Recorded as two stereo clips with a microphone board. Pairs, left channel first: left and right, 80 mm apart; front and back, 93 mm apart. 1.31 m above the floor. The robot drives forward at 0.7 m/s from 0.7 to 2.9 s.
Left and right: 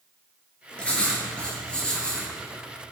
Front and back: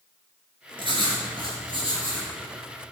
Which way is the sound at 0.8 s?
165° left.